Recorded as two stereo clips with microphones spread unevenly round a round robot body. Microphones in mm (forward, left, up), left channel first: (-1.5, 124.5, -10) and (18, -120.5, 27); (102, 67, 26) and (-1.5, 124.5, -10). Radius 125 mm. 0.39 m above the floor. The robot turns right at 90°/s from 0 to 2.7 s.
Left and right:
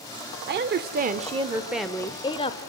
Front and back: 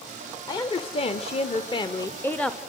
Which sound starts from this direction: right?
A woman speaking, at 0.5 s.